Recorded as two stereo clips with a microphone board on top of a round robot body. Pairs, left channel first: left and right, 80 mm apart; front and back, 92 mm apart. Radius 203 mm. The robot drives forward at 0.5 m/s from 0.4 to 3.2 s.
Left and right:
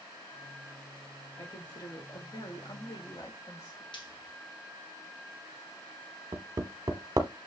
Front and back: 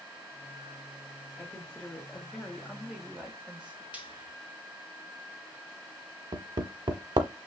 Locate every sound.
1.4 s a woman speaking: 70° left, 2.0 m; by 3.8 s 100° left, 1.9 m
3.9 s frying: 105° left, 1.9 m
6.3 s hammering: 140° right, 0.7 m